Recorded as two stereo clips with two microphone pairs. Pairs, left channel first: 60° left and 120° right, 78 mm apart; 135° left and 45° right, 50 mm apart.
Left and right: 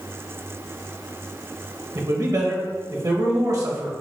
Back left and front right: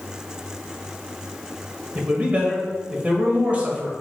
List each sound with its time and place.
1.9 s a man speaking: 95° right, 1.9 m